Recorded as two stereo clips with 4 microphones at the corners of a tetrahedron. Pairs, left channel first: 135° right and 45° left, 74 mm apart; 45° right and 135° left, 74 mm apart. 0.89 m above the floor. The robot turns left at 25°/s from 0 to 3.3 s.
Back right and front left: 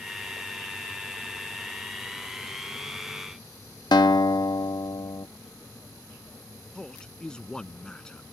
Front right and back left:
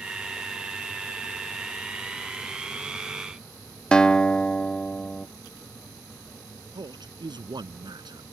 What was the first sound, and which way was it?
A guitar, 120° right.